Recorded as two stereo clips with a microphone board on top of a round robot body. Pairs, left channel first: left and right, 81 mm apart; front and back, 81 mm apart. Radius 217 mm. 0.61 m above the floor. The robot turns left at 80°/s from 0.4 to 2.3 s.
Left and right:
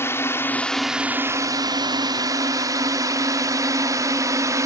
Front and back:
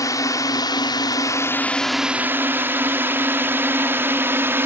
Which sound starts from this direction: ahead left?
A drone, at 0.0 s.